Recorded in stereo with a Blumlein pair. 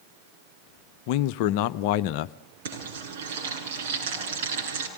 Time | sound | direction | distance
1.1 | a man speaking | 45° left | 0.6 m
2.6 | frying | 60° right | 7.5 m